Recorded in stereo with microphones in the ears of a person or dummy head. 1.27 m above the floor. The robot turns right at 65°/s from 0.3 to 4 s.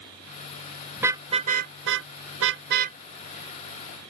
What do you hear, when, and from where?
1.0 s a car horn: 5° right (ahead or behind); by 3.0 s 40° right (ahead or behind)